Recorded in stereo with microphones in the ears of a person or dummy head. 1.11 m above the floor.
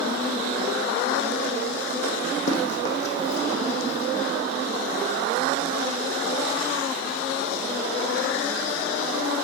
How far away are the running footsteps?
About 3 m.